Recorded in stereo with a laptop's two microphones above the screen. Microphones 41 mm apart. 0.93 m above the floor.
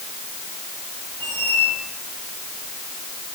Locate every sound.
1.2 s a squeak: 80° left, 3.5 m